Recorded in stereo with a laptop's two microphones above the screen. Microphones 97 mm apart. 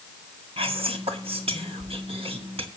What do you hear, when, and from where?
0.6 s whispering: 75° right (ahead or behind), 1.9 m